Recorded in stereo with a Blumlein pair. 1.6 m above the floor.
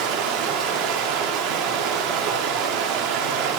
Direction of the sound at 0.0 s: 35° right.